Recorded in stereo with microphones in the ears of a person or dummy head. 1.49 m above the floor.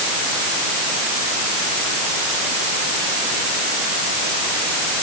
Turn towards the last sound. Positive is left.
No sound to turn to.